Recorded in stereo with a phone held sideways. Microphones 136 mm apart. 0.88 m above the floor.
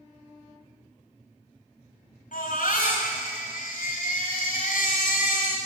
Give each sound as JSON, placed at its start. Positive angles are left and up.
{"t": 2.3, "sound": "a baby crying", "side_deg": 85, "distance_m": 4.5}